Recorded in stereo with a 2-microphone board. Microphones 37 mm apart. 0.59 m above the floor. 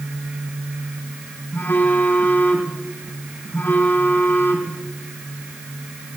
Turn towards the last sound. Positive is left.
turn(degrees=80)